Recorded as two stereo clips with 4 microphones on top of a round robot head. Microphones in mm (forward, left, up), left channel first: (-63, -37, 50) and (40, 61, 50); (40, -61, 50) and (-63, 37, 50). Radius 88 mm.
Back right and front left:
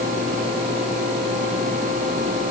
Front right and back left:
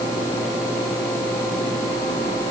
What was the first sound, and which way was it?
Only background noise.